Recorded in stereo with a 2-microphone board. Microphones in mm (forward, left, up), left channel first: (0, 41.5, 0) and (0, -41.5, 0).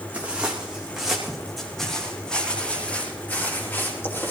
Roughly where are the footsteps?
Centre.